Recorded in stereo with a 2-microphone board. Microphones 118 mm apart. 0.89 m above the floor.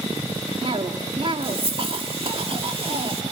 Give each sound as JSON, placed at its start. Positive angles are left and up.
{"t": 0.6, "sound": "a cough", "side_deg": -55, "distance_m": 2.5}